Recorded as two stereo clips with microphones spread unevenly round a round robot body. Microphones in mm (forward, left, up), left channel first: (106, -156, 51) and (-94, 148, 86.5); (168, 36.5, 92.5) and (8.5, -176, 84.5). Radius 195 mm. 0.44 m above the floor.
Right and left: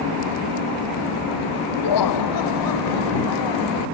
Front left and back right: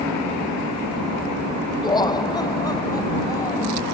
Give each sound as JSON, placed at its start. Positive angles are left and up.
{"t": 1.8, "sound": "laughter", "azimuth_deg": -20}